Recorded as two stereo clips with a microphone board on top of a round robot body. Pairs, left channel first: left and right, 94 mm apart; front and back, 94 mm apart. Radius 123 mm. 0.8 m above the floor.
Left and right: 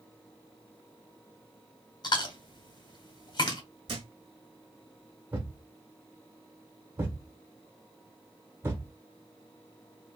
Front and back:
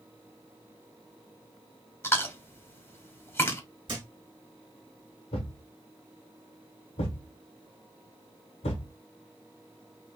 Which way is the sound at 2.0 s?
60° left.